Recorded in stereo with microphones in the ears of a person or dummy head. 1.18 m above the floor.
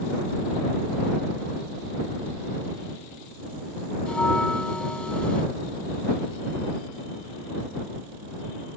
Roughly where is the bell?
Centre.